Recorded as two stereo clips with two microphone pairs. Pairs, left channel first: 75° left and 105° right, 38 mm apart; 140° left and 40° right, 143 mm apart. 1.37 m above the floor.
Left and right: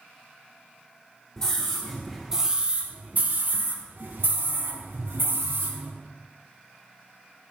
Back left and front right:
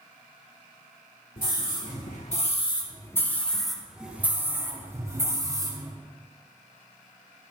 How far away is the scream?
About 2 m.